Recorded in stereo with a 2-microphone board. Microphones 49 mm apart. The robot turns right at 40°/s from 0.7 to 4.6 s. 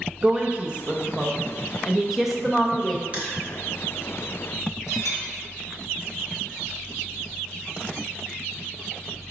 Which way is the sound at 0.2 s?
25° right (ahead or behind).